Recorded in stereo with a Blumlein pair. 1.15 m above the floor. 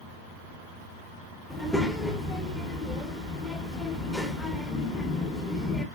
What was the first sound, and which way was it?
A child speaking, 10° left.